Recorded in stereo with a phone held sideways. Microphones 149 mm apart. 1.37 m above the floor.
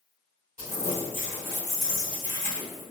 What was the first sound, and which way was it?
Crumpling, 65° left (ahead or behind).